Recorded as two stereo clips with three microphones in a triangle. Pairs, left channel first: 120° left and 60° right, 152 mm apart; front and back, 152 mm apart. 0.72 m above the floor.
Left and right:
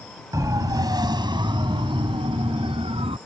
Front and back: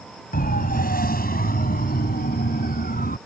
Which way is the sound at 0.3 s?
5° left.